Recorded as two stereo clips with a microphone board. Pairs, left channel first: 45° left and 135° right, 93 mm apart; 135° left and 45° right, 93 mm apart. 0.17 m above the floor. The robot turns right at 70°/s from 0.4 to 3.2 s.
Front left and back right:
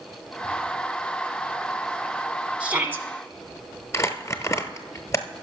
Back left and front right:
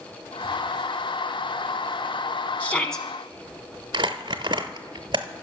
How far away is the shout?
About 1.0 m.